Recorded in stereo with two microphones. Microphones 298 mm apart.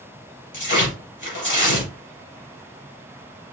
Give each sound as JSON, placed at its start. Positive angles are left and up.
{"t": 0.5, "sound": "tearing paper", "side_deg": 80, "distance_m": 2.5}